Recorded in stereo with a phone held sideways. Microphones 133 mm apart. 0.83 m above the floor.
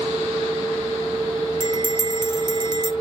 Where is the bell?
35° right (ahead or behind), 0.6 m.